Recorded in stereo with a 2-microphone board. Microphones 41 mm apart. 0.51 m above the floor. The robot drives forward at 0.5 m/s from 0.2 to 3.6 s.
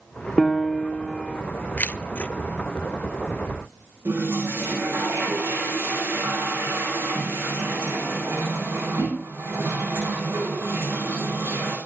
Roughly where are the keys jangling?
Left.